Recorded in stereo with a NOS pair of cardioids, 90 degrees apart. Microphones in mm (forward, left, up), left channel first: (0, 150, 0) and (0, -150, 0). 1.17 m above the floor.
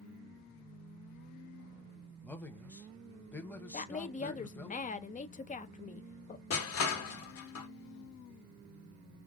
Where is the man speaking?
5° left, 1.1 m.